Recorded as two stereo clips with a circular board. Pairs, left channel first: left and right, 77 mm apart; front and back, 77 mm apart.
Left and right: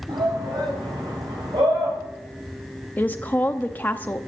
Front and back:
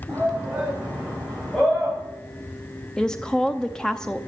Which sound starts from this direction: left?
A woman speaking, at 3.0 s.